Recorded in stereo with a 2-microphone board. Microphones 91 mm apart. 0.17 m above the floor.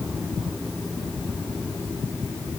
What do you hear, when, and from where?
Only background noise.